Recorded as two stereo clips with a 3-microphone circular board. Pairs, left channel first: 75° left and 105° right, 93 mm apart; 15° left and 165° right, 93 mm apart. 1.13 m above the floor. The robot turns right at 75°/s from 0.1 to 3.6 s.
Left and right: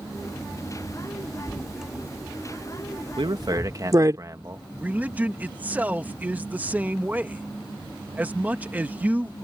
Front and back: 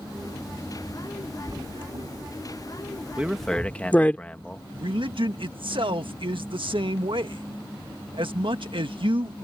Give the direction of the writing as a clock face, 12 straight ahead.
7 o'clock.